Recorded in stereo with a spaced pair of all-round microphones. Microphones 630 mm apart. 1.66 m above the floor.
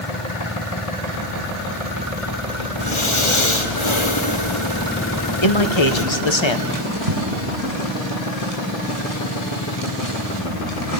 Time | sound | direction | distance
2.8 | breathing | 50° left (ahead or behind) | 1.8 m
5.4 | a man speaking | 45° left (ahead or behind) | 1.4 m
6.7 | a drawer | 65° right (ahead or behind) | 7.5 m